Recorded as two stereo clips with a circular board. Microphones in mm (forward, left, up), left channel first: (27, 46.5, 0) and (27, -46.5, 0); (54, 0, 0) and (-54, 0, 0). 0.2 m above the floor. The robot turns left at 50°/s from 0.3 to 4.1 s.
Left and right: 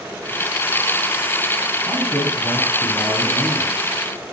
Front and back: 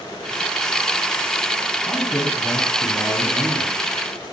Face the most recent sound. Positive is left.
turn(degrees=-115)